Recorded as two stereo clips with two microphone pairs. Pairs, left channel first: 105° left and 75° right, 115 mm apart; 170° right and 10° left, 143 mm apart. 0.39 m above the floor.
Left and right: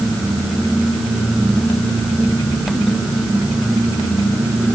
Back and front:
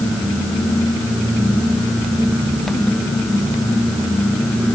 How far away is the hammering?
I don't hear hammering.